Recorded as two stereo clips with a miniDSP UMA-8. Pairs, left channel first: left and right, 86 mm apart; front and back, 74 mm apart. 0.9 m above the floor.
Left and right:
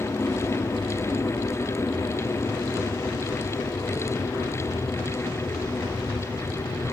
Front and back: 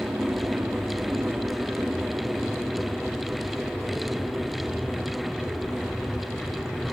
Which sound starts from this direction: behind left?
An aircraft, at 0.0 s.